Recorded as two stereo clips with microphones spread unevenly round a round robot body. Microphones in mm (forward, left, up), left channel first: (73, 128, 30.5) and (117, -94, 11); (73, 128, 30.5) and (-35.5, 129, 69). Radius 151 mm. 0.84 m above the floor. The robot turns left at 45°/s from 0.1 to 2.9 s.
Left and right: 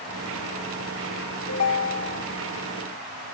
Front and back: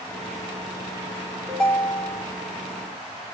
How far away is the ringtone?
About 1.4 m.